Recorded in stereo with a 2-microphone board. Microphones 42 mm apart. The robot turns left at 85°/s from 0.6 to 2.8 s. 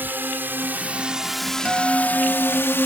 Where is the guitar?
145° right; by 2.8 s 120° left.